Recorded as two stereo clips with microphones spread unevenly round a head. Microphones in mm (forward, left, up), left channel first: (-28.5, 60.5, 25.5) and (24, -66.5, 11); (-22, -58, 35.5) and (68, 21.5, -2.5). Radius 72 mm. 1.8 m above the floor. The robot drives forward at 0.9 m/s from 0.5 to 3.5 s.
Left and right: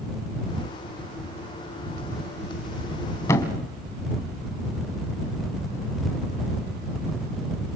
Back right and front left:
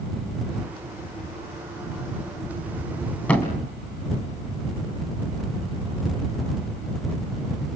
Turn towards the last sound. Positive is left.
turn(degrees=170)